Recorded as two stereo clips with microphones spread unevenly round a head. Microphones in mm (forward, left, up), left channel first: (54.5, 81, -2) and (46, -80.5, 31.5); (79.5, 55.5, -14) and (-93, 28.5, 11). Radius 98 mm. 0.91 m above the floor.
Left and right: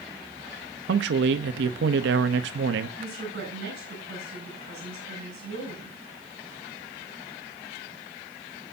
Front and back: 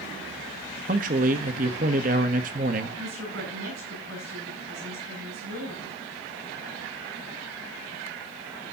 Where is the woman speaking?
140° right, 7.5 m.